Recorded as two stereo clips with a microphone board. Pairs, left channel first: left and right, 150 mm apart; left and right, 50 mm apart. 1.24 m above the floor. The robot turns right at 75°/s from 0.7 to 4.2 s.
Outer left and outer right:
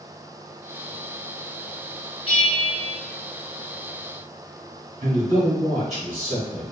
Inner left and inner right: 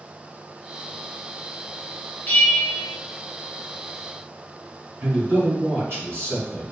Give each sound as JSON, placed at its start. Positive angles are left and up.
{"t": 2.3, "sound": "a bell", "azimuth_deg": 105, "distance_m": 0.9}
{"t": 5.0, "sound": "a man speaking", "side_deg": -50, "distance_m": 1.8}